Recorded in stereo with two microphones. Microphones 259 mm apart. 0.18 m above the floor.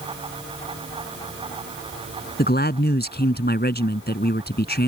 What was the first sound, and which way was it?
A man speaking, 40° left (ahead or behind).